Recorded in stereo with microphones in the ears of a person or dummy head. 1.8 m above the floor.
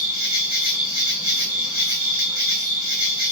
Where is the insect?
20° right (ahead or behind), 0.8 m.